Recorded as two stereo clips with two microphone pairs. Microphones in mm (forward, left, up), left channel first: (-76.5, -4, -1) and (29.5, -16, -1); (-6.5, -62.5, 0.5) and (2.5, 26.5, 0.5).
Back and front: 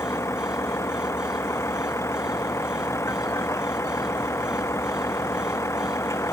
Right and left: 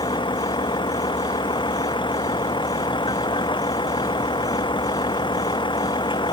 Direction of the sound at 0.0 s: 120° right.